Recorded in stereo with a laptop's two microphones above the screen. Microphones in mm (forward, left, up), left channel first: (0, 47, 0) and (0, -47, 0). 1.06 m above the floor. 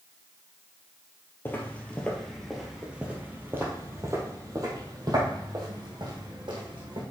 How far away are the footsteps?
About 1.4 m.